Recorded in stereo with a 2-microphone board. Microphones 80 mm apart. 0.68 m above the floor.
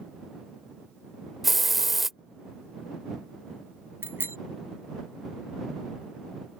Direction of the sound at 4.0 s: 30° right (ahead or behind).